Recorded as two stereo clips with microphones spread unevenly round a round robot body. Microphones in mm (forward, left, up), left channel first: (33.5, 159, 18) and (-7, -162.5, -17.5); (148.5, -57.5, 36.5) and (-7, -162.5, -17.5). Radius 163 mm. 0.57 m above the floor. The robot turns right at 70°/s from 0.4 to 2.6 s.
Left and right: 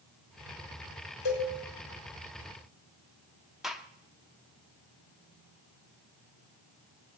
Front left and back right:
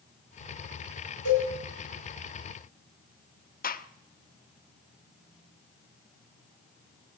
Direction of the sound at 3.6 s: 15° right.